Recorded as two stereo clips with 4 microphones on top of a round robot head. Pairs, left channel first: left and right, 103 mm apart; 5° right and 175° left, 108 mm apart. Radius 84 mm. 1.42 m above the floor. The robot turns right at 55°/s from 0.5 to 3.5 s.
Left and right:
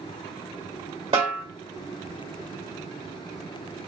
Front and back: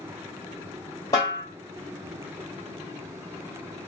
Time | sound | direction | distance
1.1 | a snare drum | 60° right | 1.3 m